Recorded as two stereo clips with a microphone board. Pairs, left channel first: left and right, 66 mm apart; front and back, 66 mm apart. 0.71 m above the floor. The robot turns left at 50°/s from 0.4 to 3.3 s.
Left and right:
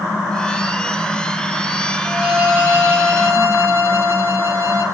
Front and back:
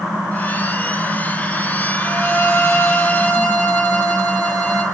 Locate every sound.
2.0 s a violin: 15° right, 1.4 m; by 4.8 s 80° right, 1.4 m